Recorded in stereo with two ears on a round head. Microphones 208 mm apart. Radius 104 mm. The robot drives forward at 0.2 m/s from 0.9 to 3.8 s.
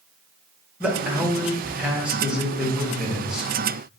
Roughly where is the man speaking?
Centre.